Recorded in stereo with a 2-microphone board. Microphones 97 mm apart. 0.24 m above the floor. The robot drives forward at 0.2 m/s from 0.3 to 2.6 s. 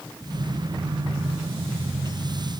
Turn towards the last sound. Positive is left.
No sound to turn to.